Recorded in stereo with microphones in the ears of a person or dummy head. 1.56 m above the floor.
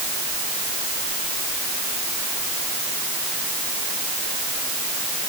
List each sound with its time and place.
Only background noise.